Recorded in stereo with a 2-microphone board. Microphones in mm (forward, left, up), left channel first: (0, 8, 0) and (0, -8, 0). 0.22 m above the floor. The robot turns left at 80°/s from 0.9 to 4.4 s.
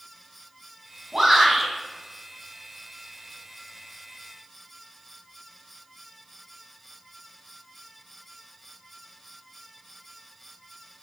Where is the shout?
140° right, 1.8 m; by 1.7 s 175° left, 1.8 m.